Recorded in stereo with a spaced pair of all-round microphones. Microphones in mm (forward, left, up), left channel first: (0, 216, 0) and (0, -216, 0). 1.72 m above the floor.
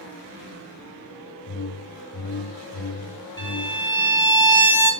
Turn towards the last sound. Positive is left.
turn(degrees=25)  # may be behind; listen again after turning